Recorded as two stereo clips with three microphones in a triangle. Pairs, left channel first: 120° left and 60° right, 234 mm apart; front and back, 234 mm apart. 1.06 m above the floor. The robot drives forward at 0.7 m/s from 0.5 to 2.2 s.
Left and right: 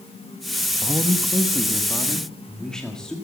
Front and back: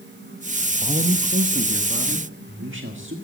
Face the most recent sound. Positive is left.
turn(degrees=-155)